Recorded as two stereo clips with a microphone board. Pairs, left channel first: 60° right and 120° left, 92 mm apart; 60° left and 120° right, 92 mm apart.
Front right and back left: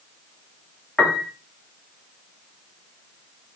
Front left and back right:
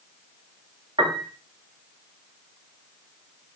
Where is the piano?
145° right, 0.8 m.